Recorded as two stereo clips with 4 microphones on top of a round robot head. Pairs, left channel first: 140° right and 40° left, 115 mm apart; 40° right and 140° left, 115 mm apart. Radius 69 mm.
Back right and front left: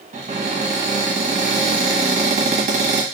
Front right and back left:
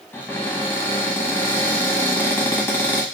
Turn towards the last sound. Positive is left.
turn(degrees=35)